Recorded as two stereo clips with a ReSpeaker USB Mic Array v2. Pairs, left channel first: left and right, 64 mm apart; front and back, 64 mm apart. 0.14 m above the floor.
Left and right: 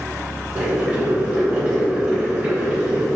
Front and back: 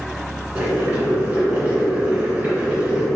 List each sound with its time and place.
0.6 s boiling: 145° right, 1.5 m